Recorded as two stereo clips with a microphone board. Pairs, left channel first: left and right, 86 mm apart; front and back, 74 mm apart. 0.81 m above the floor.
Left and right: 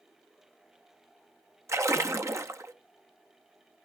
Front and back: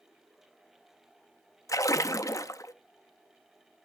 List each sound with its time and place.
1.7 s a splash: 40° right, 0.7 m